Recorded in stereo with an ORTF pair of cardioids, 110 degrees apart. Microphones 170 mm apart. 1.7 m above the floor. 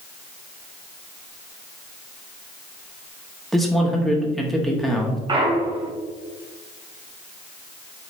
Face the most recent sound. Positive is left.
turn(degrees=-30)